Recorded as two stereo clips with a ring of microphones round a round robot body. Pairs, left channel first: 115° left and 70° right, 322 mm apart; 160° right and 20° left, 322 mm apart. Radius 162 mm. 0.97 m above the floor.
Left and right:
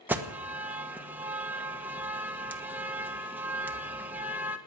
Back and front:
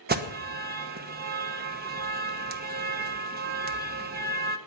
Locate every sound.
0.1 s an alarm: 10° left, 1.2 m